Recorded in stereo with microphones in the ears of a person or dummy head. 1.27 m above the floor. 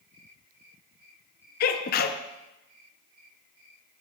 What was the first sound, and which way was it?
A sneeze, 50° left (ahead or behind).